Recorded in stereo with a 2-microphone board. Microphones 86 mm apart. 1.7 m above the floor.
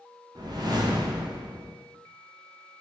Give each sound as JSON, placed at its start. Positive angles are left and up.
{"t": 0.3, "sound": "a whoosh", "side_deg": -50, "distance_m": 0.5}